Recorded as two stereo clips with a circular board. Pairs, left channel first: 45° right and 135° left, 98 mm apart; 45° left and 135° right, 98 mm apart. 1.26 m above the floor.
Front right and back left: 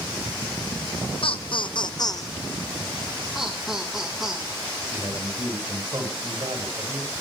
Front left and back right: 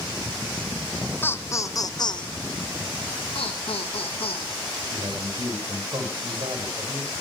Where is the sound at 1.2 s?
25° right, 1.1 m; by 2.3 s 10° left, 1.0 m.